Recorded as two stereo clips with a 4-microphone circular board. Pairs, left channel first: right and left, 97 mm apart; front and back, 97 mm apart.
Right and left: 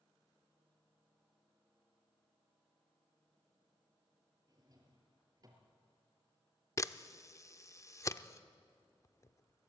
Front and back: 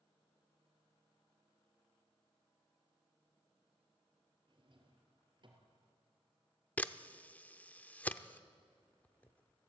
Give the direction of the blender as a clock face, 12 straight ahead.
No blender in this recording.